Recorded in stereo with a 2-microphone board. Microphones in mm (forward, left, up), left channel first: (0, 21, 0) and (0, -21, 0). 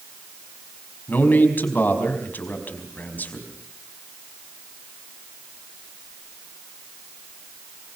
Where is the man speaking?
45° left (ahead or behind), 4.5 m.